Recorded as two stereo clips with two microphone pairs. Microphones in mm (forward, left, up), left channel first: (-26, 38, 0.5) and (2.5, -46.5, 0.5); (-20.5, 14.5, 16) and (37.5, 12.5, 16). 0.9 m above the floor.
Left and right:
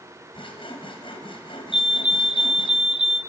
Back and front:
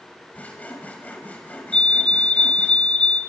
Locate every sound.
0.3 s sawing: 115° left, 4.5 m
1.7 s a fire alarm: 145° right, 1.2 m